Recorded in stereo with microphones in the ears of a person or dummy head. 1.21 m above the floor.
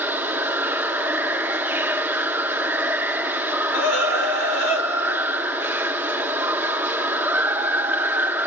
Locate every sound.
0.0 s running water: 10° right (ahead or behind), 0.9 m
3.7 s a scream: 80° left, 4.5 m